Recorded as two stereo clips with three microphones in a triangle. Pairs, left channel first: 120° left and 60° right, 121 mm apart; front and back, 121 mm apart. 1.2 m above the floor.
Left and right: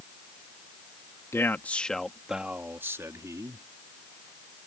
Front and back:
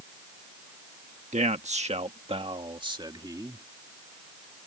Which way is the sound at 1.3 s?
170° right.